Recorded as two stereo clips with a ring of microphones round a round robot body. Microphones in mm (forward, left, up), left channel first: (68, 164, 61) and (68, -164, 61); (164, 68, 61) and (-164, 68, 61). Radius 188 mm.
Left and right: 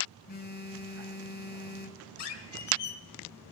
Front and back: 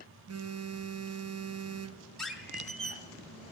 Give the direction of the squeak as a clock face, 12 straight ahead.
9 o'clock.